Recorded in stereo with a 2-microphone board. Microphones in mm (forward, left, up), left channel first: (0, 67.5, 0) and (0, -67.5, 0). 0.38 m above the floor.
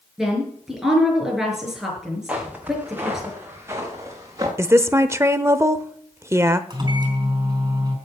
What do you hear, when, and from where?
0.2 s a woman speaking: 5° right (ahead or behind), 5.5 m
2.3 s footsteps: 10° right (ahead or behind), 4 m; by 4.5 s 25° right (ahead or behind), 4.5 m
4.6 s a woman speaking: 20° right (ahead or behind), 0.8 m
6.7 s a microwave: 30° right (ahead or behind), 4 m